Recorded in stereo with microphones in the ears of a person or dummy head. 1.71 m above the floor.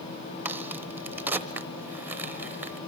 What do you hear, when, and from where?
0.5 s a crack: 5° right (ahead or behind), 1.1 m